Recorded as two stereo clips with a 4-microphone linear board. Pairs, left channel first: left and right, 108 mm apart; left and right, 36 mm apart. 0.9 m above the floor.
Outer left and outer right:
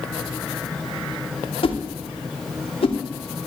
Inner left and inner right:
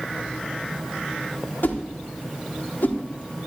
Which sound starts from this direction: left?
A whoosh, at 1.6 s.